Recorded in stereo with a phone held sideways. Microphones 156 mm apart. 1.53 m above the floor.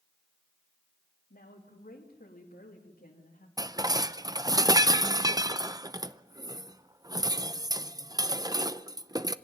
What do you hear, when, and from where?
1.3 s a woman speaking: 80° left, 3 m; by 3.5 s 65° left (ahead or behind), 2.5 m
3.6 s dishes clattering: 25° right (ahead or behind), 0.6 m